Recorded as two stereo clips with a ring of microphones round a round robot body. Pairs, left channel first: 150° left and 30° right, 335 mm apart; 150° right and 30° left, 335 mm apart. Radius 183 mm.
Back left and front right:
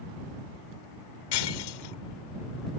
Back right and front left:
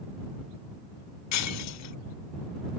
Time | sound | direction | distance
1.3 | breaking glass | 165° left | ?